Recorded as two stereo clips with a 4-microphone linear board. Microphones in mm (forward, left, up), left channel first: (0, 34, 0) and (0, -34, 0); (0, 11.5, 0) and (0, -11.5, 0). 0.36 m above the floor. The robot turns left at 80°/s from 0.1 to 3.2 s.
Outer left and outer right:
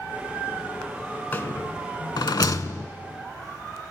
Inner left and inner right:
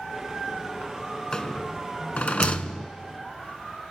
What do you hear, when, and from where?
1.3 s a rattle: 25° left (ahead or behind), 0.6 m; by 2.9 s 30° left (ahead or behind), 0.6 m